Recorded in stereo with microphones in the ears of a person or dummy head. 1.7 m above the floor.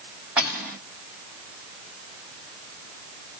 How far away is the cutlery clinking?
About 2.0 m.